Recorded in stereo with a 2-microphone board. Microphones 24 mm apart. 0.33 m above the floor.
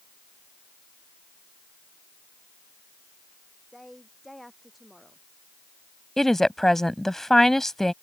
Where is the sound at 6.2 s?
15° left (ahead or behind).